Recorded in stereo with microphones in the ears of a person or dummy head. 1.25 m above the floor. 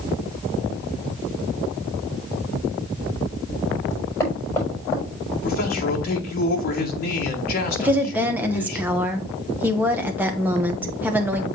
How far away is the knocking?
About 5.5 m.